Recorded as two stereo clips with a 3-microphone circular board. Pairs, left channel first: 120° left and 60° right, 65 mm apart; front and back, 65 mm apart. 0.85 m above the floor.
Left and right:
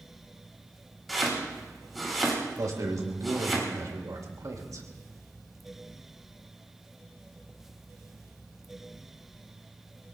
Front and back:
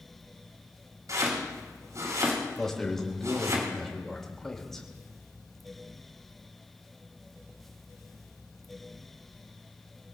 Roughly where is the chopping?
Behind right.